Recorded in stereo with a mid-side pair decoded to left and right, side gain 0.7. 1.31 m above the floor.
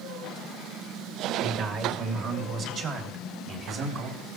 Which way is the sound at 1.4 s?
55° right.